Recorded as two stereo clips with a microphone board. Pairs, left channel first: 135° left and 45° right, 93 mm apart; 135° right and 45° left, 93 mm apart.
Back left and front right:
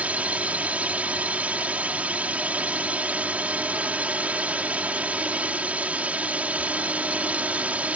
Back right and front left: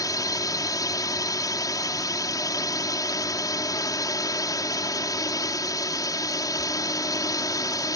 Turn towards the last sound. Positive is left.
turn(degrees=-115)